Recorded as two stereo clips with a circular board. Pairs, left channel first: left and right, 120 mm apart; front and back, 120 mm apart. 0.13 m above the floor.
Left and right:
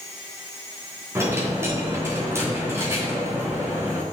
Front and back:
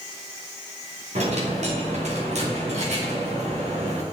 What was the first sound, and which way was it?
A dropped coin, 160° right.